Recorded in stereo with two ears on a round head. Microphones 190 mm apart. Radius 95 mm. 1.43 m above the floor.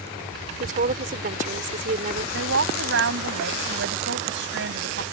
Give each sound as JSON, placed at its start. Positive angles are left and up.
{"t": 0.6, "sound": "a woman speaking", "side_deg": -35}
{"t": 2.3, "sound": "a woman speaking", "side_deg": -50}